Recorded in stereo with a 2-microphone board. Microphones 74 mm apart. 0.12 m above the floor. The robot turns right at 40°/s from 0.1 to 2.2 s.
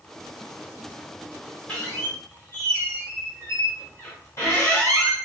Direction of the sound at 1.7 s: 20° left (ahead or behind).